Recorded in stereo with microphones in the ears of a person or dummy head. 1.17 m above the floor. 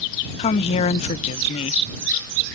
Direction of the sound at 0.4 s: 35° left (ahead or behind).